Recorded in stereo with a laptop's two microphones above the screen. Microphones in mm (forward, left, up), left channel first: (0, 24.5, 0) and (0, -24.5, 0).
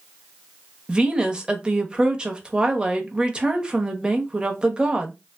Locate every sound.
0.9 s a woman speaking: 20° right (ahead or behind), 0.9 m